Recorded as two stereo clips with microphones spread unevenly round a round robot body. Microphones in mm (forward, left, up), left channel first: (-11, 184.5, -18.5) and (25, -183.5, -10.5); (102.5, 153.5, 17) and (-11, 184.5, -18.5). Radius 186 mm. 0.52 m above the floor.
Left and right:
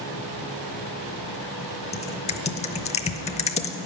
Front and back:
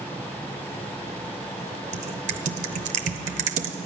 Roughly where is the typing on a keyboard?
Behind.